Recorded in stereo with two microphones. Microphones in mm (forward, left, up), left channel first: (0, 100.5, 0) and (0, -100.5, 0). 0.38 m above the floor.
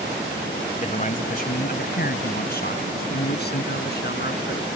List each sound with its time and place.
0.8 s a man speaking: 40° left (ahead or behind); by 4.7 s 55° left (ahead or behind)